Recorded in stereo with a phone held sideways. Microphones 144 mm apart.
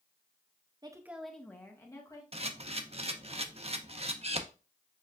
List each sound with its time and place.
0.8 s a woman speaking: 30° right (ahead or behind), 0.6 m; by 2.2 s 25° left (ahead or behind), 1.7 m
2.3 s a camera shutter: 45° right (ahead or behind), 0.6 m